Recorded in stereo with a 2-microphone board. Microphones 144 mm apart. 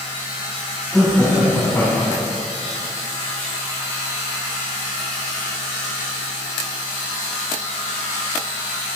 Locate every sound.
0.9 s laughter: 5° left (ahead or behind), 8 m; by 2.3 s 20° left (ahead or behind), 7.5 m